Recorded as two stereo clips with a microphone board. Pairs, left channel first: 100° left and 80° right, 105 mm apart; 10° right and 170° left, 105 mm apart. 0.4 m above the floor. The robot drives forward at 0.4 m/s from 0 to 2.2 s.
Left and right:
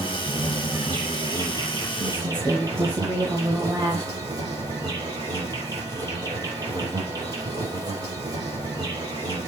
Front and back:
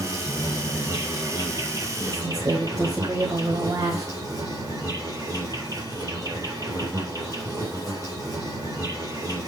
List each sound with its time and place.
0.0 s an insect: 125° right, 5 m; by 9.5 s 130° right, 5.5 m
2.0 s a woman speaking: 135° right, 1.9 m